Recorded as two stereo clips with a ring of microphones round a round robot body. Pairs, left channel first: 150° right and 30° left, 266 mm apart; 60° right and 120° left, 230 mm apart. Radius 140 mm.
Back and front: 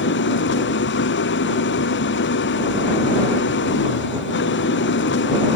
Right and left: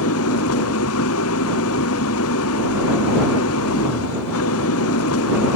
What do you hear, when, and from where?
0.0 s an engine running: 100° right